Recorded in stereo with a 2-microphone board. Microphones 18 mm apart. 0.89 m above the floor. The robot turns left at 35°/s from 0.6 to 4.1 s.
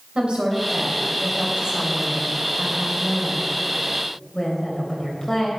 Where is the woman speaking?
85° right, 3.5 m; by 5.5 s 155° left, 3.5 m.